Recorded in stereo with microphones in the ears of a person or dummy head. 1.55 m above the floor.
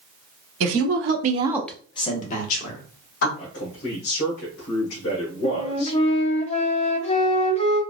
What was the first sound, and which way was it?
A woman speaking, 75° right (ahead or behind).